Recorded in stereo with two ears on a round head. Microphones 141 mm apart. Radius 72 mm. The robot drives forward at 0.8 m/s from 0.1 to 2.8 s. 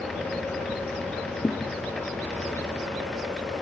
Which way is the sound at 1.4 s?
10° left (ahead or behind).